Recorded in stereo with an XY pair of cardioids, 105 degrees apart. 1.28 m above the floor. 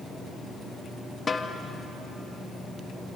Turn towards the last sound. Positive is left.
turn(degrees=35)